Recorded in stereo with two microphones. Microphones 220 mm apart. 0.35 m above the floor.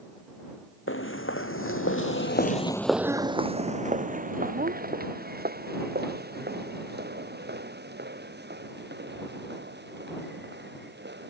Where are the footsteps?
70° left (ahead or behind); by 11.3 s 50° right (ahead or behind).